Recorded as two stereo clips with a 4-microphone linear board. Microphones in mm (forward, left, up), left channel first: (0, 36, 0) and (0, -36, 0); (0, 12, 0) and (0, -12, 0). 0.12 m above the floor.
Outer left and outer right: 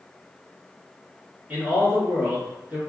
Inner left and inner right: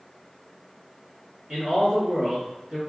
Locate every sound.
1.5 s a man speaking: 20° right (ahead or behind), 1.6 m